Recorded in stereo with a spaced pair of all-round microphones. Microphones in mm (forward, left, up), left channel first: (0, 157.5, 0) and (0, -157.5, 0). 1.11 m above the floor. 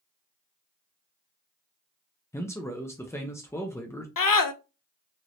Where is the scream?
80° left, 0.5 m.